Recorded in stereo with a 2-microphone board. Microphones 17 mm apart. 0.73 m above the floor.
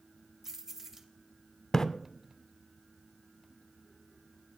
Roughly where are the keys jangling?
Centre.